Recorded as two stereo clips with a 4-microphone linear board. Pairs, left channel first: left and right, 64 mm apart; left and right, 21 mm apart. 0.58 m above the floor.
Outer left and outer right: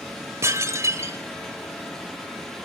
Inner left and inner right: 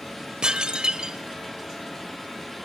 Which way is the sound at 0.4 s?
50° right (ahead or behind).